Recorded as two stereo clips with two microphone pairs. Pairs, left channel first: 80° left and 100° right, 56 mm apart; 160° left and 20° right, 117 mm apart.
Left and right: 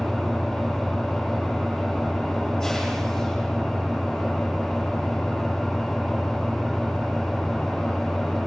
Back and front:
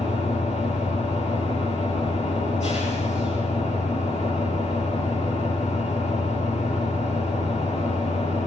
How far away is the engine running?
About 9 m.